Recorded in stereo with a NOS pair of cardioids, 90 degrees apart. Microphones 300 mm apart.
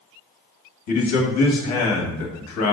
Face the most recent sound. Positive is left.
turn(degrees=65)